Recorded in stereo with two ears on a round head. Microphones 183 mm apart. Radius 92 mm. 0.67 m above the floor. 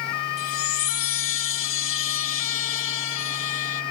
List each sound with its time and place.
0.4 s a chime: 65° left (ahead or behind)